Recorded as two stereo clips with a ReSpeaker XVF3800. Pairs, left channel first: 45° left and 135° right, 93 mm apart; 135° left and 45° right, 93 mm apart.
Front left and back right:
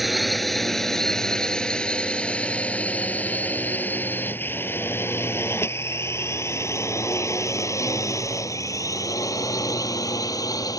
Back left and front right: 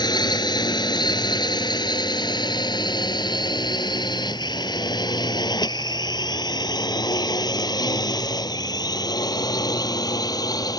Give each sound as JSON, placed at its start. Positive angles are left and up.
{"t": 0.0, "sound": "a drone", "azimuth_deg": 135}